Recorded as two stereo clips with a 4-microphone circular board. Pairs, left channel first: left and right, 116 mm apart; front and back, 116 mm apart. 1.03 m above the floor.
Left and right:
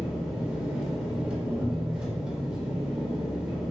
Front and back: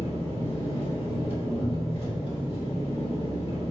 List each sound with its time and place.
0.0 s an engine running: 10° right, 1.0 m